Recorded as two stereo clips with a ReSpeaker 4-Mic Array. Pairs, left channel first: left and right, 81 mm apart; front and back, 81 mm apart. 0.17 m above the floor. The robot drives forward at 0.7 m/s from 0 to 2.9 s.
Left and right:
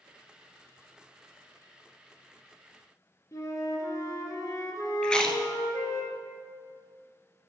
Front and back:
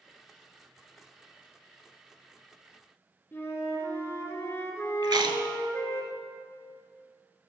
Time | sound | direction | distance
3.3 | a flute | 55° left | 1.6 m
5.0 | chewing | 170° left | 0.9 m